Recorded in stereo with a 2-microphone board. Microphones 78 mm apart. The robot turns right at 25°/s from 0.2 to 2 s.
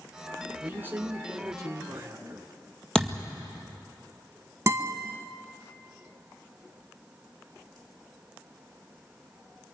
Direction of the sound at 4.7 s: 40° right (ahead or behind).